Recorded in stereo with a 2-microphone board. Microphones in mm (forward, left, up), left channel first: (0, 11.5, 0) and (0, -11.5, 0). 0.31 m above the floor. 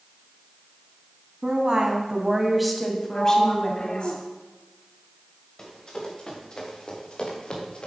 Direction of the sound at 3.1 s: 45° left (ahead or behind).